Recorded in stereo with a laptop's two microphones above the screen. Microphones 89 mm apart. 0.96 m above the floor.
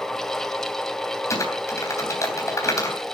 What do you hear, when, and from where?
0.0 s a fan: 5° left (ahead or behind), 1.6 m
1.3 s typing on a keyboard: 35° left (ahead or behind), 3 m